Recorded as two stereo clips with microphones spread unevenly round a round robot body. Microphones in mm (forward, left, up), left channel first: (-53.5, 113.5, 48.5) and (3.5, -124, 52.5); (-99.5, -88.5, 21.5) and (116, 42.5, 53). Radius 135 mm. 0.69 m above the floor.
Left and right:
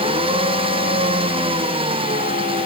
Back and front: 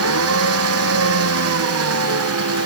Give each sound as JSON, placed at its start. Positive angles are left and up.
{"t": 0.0, "sound": "an engine running", "azimuth_deg": -5}